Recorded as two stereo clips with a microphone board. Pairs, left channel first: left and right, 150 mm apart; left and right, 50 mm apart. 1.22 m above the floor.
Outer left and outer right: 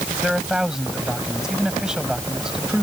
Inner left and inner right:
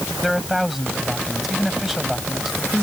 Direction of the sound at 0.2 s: 5° right (ahead or behind).